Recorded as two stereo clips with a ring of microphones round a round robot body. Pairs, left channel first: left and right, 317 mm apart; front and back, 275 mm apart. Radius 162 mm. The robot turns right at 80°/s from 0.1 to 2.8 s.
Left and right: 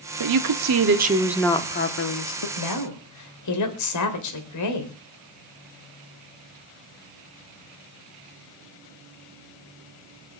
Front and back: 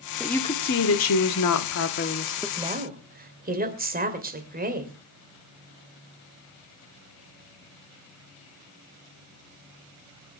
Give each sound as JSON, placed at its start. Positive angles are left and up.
{"t": 0.2, "sound": "a woman speaking", "azimuth_deg": -95, "distance_m": 1.4}
{"t": 2.6, "sound": "a woman speaking", "azimuth_deg": 105, "distance_m": 3.0}